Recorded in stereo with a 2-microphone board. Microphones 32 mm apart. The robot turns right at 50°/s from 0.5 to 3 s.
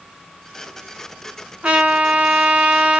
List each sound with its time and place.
1.6 s a trumpet: 125° right, 1.0 m; by 3.0 s 55° right, 1.0 m